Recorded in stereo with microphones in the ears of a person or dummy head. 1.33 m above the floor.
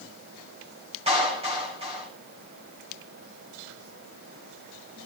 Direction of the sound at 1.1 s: 35° right (ahead or behind).